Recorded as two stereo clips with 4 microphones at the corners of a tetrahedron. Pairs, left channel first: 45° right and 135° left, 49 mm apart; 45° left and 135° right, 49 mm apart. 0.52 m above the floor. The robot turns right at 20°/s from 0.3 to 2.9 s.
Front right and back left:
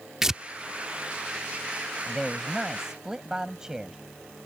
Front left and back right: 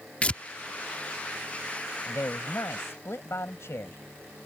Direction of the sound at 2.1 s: 40° left.